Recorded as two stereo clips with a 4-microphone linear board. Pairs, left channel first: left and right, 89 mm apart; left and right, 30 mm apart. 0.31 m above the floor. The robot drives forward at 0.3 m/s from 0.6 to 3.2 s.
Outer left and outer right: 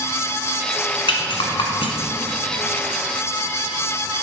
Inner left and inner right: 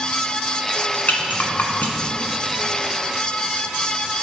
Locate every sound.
1.1 s a rattle: 75° left (ahead or behind), 1.3 m